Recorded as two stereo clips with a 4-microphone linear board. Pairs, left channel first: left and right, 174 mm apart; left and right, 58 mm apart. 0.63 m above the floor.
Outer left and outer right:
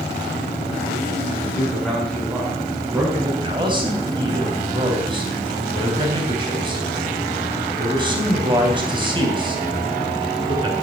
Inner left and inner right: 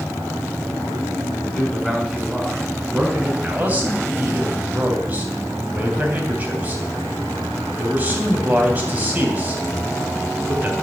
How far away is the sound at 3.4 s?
About 3 m.